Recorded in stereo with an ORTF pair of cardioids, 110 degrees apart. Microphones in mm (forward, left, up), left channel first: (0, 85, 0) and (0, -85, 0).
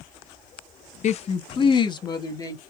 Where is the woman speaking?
45° left, 0.6 m; by 2.6 s 20° left, 1.8 m.